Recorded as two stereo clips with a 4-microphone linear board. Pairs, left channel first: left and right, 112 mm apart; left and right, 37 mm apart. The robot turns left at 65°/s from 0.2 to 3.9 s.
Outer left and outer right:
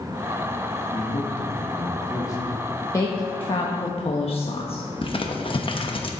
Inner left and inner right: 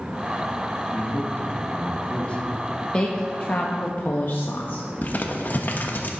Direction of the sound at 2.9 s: 145° left.